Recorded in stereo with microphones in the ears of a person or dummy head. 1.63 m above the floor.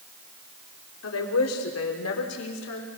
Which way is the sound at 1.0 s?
85° left.